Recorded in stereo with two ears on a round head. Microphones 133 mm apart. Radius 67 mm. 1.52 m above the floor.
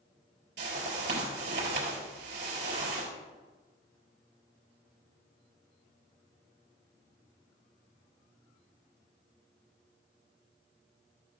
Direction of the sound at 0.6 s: 85° right.